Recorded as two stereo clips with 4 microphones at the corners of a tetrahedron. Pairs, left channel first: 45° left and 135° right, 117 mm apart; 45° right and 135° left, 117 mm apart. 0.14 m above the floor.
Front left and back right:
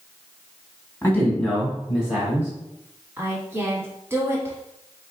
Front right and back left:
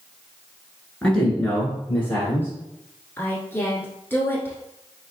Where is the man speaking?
20° left, 1.7 m; by 2.5 s 95° right, 1.7 m.